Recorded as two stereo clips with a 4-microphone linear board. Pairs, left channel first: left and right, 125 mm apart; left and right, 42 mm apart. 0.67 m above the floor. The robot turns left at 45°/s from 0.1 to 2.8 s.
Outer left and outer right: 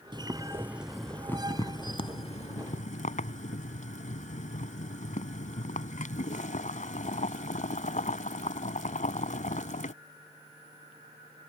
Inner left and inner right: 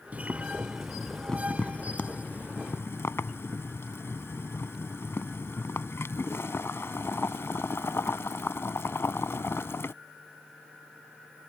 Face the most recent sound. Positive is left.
turn(degrees=100)